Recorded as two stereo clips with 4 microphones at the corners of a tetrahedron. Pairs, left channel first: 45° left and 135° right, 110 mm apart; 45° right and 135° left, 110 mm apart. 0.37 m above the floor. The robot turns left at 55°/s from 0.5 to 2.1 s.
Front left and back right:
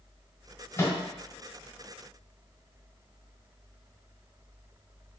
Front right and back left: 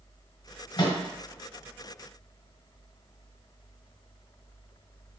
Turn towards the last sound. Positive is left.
turn(degrees=-85)